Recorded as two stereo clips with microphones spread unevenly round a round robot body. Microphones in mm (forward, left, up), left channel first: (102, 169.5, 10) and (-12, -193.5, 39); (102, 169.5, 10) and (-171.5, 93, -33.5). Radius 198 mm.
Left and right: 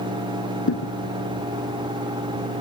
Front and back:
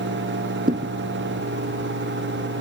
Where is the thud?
135° left.